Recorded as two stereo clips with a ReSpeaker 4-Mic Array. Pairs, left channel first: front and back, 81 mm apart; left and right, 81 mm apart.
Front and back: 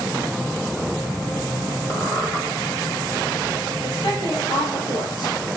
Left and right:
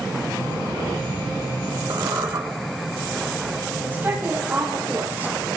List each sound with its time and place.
1.9 s a squeak: 55° right, 3 m
3.8 s a woman speaking: 25° right, 5.5 m